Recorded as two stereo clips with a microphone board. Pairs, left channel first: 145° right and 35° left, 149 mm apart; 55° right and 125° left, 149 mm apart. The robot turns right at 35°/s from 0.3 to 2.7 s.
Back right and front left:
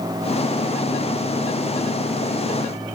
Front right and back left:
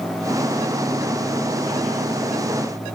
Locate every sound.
Only background noise.